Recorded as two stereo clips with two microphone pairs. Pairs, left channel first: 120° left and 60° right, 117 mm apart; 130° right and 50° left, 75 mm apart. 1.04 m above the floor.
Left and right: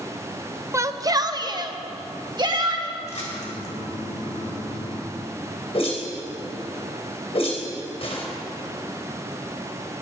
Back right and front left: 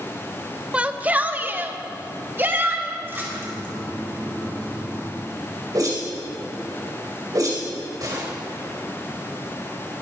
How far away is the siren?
No siren in this recording.